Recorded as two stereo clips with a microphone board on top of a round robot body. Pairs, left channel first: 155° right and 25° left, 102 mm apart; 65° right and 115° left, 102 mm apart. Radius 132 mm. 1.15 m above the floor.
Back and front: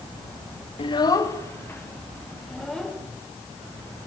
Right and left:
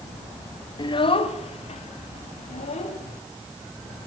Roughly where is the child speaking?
Behind right.